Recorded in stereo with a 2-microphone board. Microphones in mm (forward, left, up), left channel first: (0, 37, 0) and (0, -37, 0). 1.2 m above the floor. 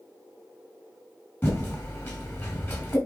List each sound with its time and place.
1.4 s typing on a keyboard: 30° left (ahead or behind), 3 m